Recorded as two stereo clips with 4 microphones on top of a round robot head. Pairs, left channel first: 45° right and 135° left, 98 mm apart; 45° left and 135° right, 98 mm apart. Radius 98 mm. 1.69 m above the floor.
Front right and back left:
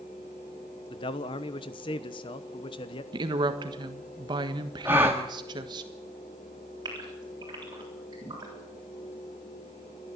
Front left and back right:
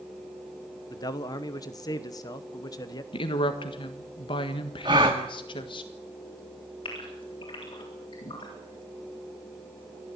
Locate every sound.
0.9 s a man speaking: 5° right, 1.1 m
3.1 s a woman speaking: 90° left, 1.5 m
4.8 s a gasp: 165° right, 1.2 m
6.8 s a gasp: 80° left, 8 m